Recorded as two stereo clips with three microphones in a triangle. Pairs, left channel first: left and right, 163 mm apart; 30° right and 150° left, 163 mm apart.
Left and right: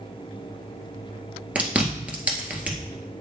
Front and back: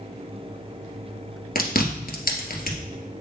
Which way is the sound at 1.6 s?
5° right.